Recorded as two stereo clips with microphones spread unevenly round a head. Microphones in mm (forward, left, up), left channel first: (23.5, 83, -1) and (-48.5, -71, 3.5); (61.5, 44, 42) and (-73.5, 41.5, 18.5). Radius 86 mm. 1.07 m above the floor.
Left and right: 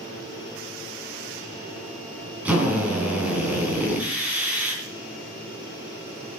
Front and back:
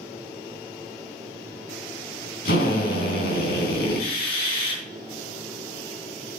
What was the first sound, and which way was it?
A drill, 35° right.